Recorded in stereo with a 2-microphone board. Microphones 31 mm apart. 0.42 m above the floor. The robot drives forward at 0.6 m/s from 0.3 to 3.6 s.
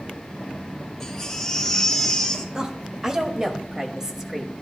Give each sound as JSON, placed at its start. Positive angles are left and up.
{"t": 1.0, "sound": "a baby crying", "side_deg": 10, "distance_m": 2.5}
{"t": 2.5, "sound": "a woman speaking", "side_deg": -20, "distance_m": 1.5}